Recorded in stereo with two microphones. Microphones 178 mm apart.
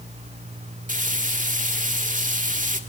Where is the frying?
50° right (ahead or behind), 1.8 m.